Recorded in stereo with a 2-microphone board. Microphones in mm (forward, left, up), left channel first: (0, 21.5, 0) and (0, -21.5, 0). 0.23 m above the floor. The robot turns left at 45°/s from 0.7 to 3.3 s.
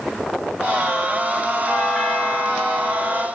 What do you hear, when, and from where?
1.7 s a doorbell: centre (ahead or behind), 1.7 m; by 3.3 s 25° left (ahead or behind), 1.7 m